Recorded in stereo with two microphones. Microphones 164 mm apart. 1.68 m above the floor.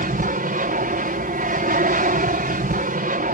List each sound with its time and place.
0.0 s an aircraft: 60° right (ahead or behind)